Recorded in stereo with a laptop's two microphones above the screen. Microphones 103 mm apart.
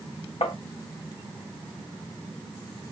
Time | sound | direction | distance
0.4 | tapping | 65° left (ahead or behind) | 1.0 m